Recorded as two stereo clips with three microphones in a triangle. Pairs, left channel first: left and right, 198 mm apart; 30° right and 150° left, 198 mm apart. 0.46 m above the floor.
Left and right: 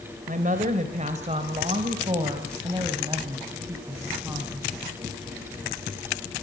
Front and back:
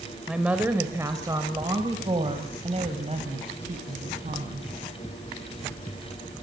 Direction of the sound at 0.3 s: 125° right.